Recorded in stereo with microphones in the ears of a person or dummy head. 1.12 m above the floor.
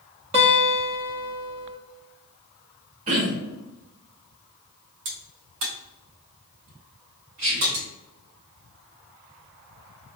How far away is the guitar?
About 0.6 m.